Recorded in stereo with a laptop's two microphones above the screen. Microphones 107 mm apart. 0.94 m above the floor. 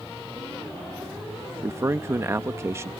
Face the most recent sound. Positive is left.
turn(degrees=-25)  # may be behind; listen again after turning